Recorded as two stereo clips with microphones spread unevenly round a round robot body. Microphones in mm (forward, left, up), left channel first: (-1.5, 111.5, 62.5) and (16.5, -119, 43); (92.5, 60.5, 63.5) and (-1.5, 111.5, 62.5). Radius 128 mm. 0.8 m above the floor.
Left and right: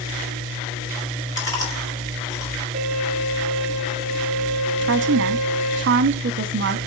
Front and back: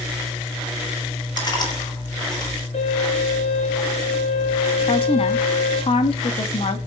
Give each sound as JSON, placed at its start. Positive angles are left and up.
{"t": 1.4, "sound": "chewing", "azimuth_deg": 20, "distance_m": 5.5}
{"t": 2.7, "sound": "a violin", "azimuth_deg": -15, "distance_m": 8.5}
{"t": 4.8, "sound": "a woman speaking", "azimuth_deg": -60, "distance_m": 1.2}